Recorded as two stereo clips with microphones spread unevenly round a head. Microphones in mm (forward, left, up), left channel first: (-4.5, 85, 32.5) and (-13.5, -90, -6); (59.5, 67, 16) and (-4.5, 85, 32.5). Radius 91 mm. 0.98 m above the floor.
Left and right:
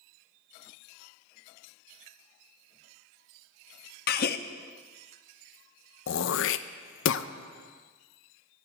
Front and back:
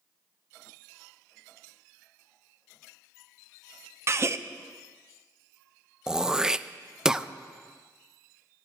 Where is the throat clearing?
75° left, 0.5 m.